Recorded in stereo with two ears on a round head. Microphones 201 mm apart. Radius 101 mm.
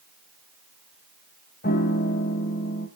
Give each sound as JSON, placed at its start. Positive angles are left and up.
{"t": 1.6, "sound": "a piano", "side_deg": 40, "distance_m": 1.5}